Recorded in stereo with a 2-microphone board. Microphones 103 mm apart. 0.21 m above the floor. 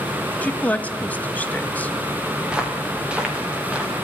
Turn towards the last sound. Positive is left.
turn(degrees=-10)  # may be behind; listen again after turning